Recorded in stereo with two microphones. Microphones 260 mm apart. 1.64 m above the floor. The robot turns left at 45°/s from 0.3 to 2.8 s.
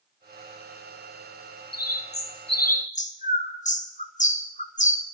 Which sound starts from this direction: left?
A bird, at 1.7 s.